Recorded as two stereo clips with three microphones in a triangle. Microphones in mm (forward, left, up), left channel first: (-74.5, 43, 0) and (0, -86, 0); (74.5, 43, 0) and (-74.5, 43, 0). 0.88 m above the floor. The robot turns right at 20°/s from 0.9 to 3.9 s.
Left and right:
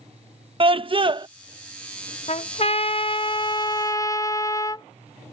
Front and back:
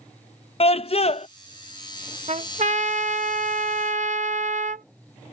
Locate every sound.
0.6 s a scream: 25° right; by 1.3 s 15° right
2.3 s a trumpet: 150° left; by 4.8 s 175° right